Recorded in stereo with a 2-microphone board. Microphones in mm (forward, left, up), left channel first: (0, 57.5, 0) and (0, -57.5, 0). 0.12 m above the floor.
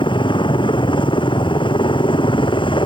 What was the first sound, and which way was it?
A helicopter, 45° left (ahead or behind).